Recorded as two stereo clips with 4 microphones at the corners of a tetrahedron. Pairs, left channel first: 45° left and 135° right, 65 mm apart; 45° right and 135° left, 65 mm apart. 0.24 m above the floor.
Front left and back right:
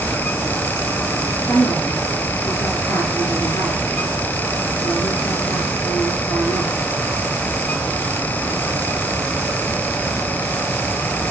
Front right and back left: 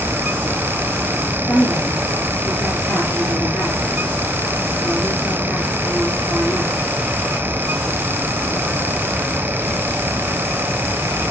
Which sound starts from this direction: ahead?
A woman speaking, at 1.5 s.